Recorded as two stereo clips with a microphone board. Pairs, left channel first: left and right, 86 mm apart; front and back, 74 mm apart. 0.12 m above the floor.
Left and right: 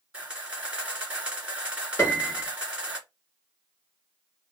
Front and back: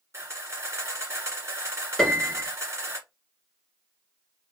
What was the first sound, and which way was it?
A camera shutter, 165° right.